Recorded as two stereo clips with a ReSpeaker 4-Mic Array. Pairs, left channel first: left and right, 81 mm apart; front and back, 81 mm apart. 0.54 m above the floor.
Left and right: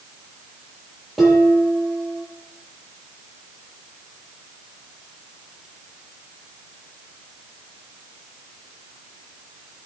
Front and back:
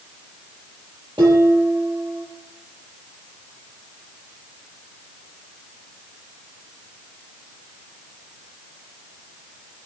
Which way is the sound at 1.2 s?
175° right.